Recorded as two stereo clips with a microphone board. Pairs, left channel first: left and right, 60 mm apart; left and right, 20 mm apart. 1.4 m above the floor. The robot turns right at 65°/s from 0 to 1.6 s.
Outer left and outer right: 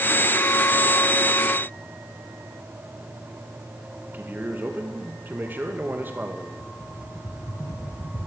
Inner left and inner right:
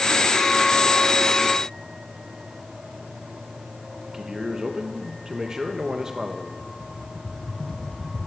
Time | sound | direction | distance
4.1 | a man speaking | 35° right (ahead or behind) | 1.9 m
6.6 | a rattle | 55° left (ahead or behind) | 2 m